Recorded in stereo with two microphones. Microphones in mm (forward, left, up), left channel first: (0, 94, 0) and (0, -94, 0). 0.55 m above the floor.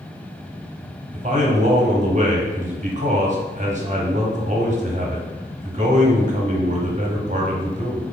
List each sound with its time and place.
1.1 s a man speaking: 40° right (ahead or behind), 0.8 m